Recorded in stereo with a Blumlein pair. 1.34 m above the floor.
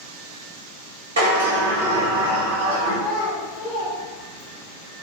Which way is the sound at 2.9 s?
20° left.